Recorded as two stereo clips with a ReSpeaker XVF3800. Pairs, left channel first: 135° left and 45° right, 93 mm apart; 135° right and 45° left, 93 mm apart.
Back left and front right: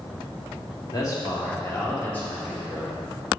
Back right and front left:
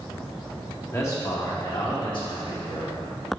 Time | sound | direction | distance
0.9 | a man speaking | 170° left | 1.4 m